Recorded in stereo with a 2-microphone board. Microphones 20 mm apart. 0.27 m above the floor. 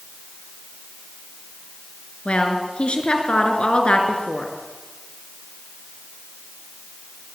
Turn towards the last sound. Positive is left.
turn(degrees=65)  # may be behind; listen again after turning